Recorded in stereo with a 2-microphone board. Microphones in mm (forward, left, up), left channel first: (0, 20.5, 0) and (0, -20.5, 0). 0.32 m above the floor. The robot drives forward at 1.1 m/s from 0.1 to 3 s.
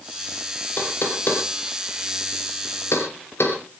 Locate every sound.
0.8 s knocking: 50° left (ahead or behind), 5 m; by 3.6 s 80° left, 4 m